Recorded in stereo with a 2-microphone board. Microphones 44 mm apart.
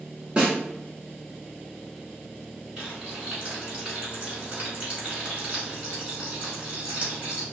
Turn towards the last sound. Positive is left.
turn(degrees=-25)  # may be behind; listen again after turning